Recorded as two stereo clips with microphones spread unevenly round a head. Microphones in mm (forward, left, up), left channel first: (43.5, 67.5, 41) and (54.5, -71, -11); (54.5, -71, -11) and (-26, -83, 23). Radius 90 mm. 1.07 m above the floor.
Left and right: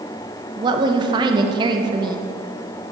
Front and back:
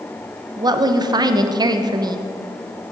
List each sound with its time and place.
0.6 s a woman speaking: 120° right, 0.7 m